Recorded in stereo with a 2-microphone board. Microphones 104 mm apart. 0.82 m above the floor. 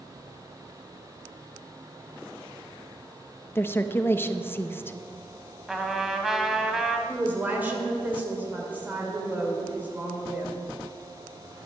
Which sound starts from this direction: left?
A woman speaking, at 3.5 s.